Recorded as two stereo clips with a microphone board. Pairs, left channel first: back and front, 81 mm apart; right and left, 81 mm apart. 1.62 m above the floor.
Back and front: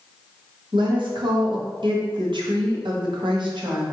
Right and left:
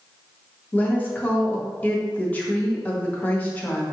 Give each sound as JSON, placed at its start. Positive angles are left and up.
{"t": 0.7, "sound": "a woman speaking", "azimuth_deg": -20, "distance_m": 0.9}